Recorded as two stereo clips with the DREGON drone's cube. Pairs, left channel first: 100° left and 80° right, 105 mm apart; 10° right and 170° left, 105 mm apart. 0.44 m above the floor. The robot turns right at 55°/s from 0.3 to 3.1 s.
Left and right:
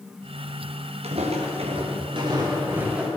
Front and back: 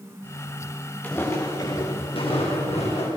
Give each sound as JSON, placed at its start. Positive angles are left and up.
{"t": 1.0, "sound": "footsteps", "azimuth_deg": -85, "distance_m": 3.0}